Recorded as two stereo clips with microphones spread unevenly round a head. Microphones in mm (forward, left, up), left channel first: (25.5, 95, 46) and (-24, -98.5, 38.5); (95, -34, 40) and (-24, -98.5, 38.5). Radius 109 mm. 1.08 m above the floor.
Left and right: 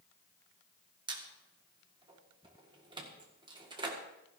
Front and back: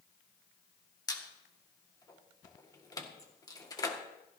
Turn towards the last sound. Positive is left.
turn(degrees=-35)